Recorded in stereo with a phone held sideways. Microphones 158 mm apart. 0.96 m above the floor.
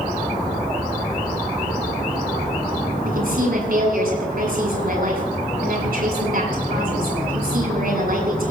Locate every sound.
3.0 s a woman speaking: 70° right (ahead or behind), 7.5 m